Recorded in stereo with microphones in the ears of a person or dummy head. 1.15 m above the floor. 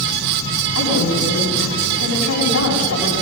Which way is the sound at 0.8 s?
85° left.